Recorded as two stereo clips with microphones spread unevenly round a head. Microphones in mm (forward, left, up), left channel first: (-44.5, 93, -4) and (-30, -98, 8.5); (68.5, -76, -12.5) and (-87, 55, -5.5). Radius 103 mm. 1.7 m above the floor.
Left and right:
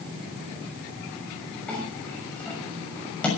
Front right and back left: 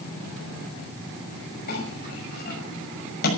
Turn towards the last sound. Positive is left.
turn(degrees=10)